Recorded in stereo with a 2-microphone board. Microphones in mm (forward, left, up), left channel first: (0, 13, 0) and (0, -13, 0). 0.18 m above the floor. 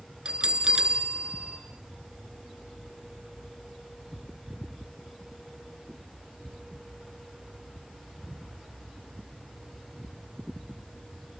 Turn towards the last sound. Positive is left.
turn(degrees=-35)  # may be behind; listen again after turning